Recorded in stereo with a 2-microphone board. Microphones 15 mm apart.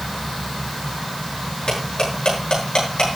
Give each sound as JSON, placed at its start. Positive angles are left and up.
{"t": 1.7, "sound": "cutlery clinking", "side_deg": 85, "distance_m": 7.5}